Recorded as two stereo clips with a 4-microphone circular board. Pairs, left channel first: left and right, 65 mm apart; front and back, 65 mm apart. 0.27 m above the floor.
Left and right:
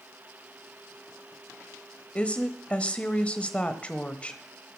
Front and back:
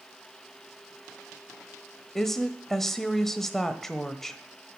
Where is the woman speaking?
70° left, 1.1 m.